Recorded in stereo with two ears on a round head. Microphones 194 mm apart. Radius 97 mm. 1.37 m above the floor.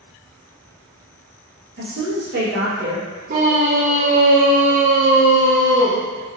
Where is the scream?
40° right (ahead or behind), 0.6 m.